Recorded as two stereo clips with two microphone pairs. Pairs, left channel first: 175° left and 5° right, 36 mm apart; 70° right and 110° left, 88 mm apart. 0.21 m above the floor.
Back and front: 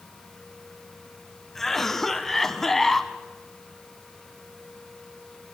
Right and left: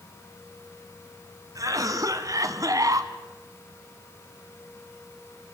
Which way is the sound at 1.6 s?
95° left.